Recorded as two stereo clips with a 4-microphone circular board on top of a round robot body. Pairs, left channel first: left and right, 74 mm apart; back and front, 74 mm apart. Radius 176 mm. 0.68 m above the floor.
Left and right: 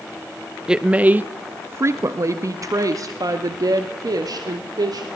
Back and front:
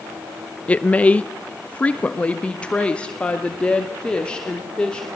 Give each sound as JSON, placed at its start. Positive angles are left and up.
{"t": 0.7, "sound": "a woman speaking", "azimuth_deg": -150, "distance_m": 1.1}